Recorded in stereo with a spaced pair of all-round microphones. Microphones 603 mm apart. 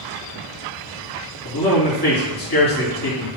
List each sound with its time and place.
1.4 s a man speaking: 35° left (ahead or behind), 3 m